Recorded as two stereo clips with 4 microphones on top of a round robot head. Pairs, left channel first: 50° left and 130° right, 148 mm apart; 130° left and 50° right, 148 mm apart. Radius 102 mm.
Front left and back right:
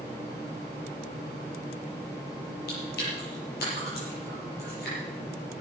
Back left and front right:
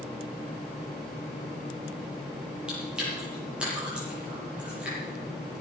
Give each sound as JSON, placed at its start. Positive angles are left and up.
{"t": 2.7, "sound": "chewing", "azimuth_deg": 35, "distance_m": 7.5}